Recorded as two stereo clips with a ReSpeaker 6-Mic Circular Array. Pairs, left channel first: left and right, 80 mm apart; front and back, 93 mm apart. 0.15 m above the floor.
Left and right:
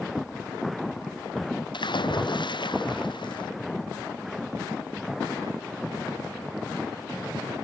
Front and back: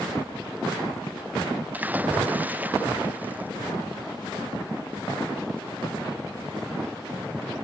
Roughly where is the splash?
Left.